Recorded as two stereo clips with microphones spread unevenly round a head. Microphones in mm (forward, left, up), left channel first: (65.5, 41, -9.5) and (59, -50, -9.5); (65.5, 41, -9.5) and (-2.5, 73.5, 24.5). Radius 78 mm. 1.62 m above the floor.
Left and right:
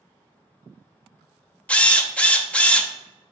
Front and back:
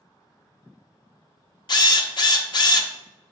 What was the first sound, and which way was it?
A drill, 10° left.